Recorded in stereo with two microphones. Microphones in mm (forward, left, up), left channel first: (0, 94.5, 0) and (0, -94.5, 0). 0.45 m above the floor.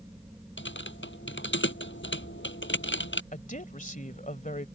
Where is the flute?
I don't hear a flute.